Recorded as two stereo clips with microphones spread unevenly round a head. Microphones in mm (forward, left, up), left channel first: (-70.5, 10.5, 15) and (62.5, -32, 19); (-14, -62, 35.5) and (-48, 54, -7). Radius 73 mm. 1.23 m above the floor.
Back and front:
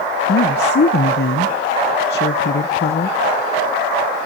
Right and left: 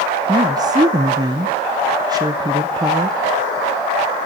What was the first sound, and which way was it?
A woman speaking, 160° left.